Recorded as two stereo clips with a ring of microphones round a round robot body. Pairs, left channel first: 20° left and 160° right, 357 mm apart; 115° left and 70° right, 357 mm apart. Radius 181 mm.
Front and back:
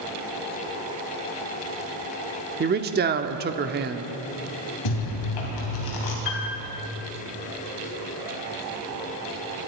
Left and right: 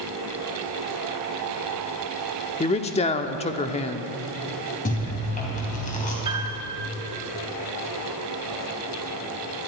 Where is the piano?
10° left, 2.5 m.